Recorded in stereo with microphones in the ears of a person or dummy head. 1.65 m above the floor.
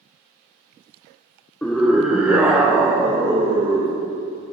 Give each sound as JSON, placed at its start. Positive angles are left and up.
{"t": 1.6, "sound": "a scream", "side_deg": 10, "distance_m": 0.9}